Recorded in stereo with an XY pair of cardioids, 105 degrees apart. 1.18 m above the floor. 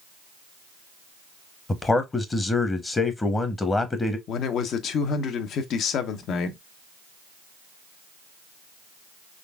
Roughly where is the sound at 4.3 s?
Ahead left.